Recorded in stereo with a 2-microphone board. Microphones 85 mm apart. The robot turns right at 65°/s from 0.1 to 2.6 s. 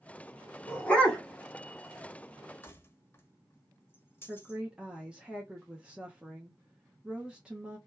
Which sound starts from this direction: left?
Keys jangling, at 2.6 s.